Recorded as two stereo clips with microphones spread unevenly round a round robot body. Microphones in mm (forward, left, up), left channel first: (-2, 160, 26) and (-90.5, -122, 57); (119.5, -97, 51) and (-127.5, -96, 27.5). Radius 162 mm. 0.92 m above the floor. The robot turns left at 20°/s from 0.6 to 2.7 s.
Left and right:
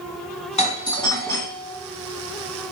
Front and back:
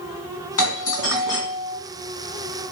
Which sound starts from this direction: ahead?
A doorbell, at 0.6 s.